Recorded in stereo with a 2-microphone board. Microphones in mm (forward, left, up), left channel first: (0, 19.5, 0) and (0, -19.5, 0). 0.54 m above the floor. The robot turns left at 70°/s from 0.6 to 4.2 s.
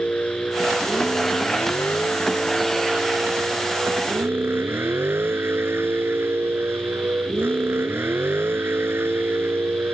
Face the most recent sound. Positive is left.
turn(degrees=-105)